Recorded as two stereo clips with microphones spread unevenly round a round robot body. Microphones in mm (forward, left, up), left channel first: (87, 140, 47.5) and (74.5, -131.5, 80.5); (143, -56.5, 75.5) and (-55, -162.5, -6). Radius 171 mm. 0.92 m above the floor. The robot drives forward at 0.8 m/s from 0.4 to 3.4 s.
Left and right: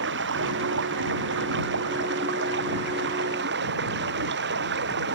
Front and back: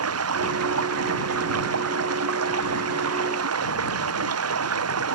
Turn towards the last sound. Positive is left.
turn(degrees=-150)